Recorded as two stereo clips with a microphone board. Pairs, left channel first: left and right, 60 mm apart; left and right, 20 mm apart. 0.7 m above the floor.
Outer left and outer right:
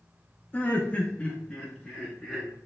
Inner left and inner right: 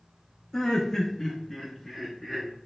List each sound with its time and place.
0.5 s laughter: 25° left (ahead or behind), 0.5 m; by 2.5 s 5° left (ahead or behind), 0.9 m